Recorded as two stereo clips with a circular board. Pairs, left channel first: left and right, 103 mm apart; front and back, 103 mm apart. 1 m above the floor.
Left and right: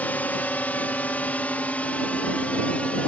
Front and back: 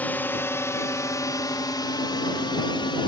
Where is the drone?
45° left; by 3.1 s 15° left.